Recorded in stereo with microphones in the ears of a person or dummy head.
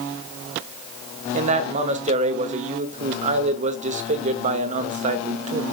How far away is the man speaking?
About 1.2 m.